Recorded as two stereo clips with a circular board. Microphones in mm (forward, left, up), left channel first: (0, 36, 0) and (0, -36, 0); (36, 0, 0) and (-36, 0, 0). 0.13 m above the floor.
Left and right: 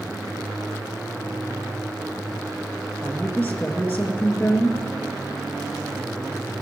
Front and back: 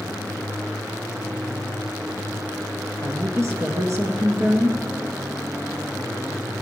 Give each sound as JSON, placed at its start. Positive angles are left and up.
{"t": 3.0, "sound": "a woman speaking", "azimuth_deg": 150, "distance_m": 2.0}